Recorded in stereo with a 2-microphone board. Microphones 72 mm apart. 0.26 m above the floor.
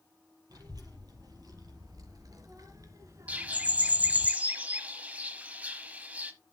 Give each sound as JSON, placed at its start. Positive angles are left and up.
{"t": 0.5, "sound": "a child speaking", "side_deg": -70, "distance_m": 4.5}
{"t": 3.3, "sound": "a bird", "side_deg": -25, "distance_m": 1.0}